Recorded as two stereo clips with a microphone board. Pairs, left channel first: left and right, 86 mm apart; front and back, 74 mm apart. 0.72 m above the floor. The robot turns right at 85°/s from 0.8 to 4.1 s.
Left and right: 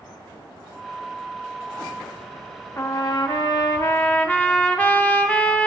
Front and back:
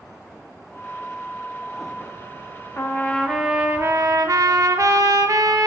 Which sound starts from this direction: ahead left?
A trumpet, at 2.8 s.